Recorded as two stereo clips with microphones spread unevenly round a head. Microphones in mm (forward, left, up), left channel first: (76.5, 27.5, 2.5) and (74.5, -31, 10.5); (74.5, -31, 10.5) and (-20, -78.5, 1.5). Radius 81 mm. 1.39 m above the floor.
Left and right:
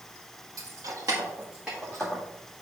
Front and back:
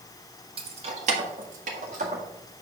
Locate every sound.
0.6 s keys jangling: 115° right, 1.4 m; by 2.6 s 160° left, 2.5 m